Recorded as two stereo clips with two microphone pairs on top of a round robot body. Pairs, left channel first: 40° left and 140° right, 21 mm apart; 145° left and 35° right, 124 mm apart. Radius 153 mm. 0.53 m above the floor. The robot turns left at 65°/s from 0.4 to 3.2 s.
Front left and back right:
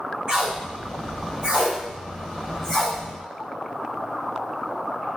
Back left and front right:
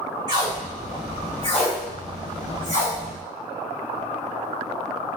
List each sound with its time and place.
0.3 s tape being pulled: 90° right, 2.5 m; by 3.0 s 100° left, 2.5 m